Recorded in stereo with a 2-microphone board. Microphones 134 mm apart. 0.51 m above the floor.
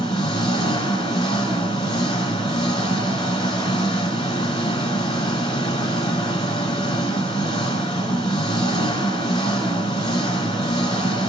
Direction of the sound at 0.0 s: 40° left (ahead or behind).